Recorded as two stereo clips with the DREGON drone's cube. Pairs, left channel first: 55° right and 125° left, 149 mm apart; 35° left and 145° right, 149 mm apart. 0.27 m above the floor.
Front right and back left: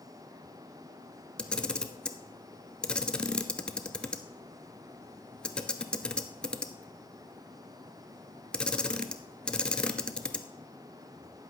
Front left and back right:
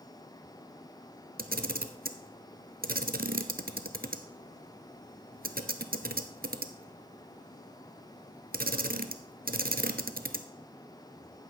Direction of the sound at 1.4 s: 140° right.